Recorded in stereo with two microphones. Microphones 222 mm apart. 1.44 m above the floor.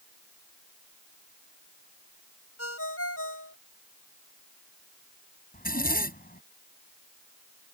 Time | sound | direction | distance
2.6 | a ringtone | 85° left | ?
5.5 | a zipper | 40° left (ahead or behind) | ?